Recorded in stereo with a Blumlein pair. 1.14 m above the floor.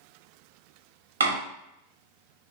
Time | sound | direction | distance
1.2 | a door slam | 70° right | 1.1 m